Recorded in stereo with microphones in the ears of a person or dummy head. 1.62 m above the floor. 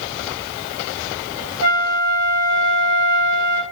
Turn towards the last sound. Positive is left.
turn(degrees=-90)